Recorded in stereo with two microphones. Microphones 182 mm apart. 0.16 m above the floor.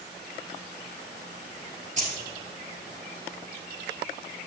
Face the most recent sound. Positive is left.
turn(degrees=-45)  # may be behind; listen again after turning